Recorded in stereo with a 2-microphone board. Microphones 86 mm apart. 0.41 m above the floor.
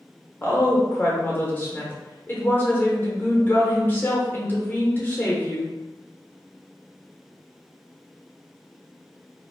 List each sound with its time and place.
0.4 s a woman speaking: 25° left (ahead or behind), 0.9 m